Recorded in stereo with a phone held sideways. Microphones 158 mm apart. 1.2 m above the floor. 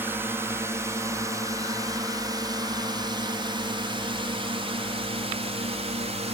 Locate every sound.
0.0 s a drone: 15° right (ahead or behind); by 6.3 s 45° right (ahead or behind)